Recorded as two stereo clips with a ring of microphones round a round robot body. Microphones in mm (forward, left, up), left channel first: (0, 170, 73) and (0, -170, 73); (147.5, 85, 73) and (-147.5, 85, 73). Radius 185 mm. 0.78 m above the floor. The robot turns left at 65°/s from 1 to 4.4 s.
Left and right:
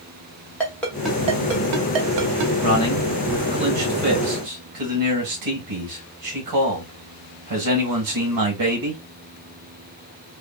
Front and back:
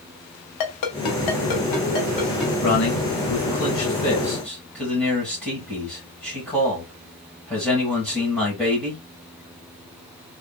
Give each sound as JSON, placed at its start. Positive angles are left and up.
{"t": 0.6, "sound": "a ringtone", "azimuth_deg": 5, "distance_m": 0.9}
{"t": 2.6, "sound": "a man speaking", "azimuth_deg": 30, "distance_m": 2.0}